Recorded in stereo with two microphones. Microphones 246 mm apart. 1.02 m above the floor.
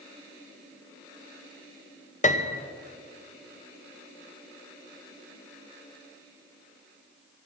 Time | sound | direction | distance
2.2 | a piano | 30° left (ahead or behind) | 0.6 m